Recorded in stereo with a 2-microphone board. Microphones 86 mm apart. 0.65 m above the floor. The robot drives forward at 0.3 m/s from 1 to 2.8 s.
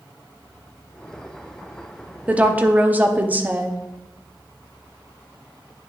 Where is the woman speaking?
15° right (ahead or behind), 0.7 m; by 3.8 s 20° right (ahead or behind), 0.6 m.